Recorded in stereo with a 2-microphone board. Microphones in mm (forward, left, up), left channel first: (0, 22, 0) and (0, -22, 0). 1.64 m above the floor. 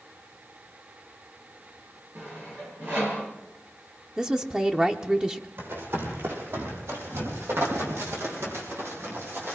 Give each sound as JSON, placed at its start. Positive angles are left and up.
{"t": 2.1, "sound": "sawing", "side_deg": -50, "distance_m": 7.0}
{"t": 4.2, "sound": "a woman speaking", "side_deg": -20, "distance_m": 1.0}
{"t": 5.6, "sound": "running footsteps", "side_deg": -65, "distance_m": 5.5}